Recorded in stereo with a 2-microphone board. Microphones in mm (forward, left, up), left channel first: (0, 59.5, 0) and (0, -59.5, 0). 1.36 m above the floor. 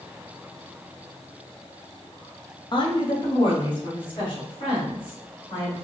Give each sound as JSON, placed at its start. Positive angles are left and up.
{"t": 2.7, "sound": "a woman speaking", "side_deg": 40, "distance_m": 0.8}